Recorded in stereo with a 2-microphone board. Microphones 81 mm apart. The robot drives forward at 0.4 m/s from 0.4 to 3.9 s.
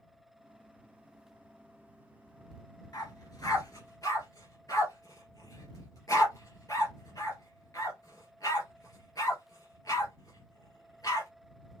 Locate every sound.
2.9 s a dog barking: 45° left (ahead or behind), 2.5 m; by 11.3 s 40° left (ahead or behind), 2.5 m